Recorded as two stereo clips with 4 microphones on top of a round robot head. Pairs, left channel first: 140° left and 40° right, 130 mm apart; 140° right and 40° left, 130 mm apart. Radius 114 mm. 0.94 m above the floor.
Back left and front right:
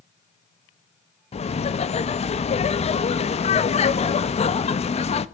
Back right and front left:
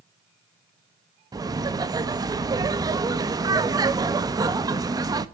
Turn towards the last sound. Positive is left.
turn(degrees=100)